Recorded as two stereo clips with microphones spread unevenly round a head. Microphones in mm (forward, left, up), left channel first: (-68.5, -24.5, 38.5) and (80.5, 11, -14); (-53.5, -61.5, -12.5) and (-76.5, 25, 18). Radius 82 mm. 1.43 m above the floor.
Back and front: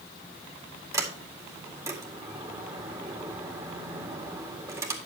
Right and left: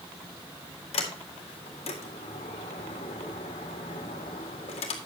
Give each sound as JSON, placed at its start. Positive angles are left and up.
{"t": 0.9, "sound": "a sliding door", "azimuth_deg": -60, "distance_m": 2.0}